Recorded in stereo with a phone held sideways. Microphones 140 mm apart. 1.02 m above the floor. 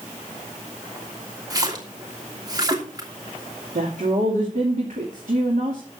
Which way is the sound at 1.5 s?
30° right (ahead or behind).